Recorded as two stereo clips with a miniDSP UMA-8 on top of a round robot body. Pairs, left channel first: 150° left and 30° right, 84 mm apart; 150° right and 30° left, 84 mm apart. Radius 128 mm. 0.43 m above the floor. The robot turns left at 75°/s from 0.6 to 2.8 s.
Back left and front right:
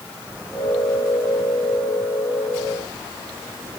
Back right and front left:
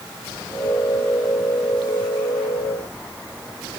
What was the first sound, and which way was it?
Only background noise.